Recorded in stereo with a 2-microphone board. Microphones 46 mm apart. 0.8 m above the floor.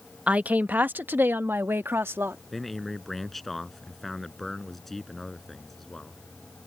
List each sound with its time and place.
0.3 s a woman speaking: 30° right (ahead or behind); by 2.4 s 60° right (ahead or behind)
2.5 s a man speaking: 5° left (ahead or behind)